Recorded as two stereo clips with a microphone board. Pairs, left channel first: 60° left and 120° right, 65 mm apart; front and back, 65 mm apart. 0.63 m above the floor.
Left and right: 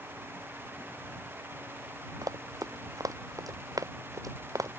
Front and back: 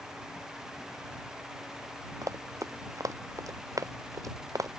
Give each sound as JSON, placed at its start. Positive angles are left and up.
{"t": 2.2, "sound": "running footsteps", "azimuth_deg": -145}